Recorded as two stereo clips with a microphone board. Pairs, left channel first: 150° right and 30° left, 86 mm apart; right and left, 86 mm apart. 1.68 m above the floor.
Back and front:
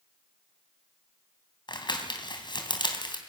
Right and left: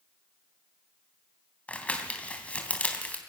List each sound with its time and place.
1.7 s crumpling: 160° right, 3 m